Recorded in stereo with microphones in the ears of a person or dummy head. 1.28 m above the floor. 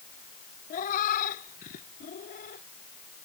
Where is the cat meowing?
45° left (ahead or behind).